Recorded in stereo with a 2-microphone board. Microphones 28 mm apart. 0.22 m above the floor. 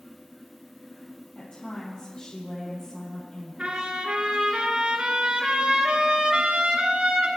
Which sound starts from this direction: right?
A trumpet, at 3.6 s.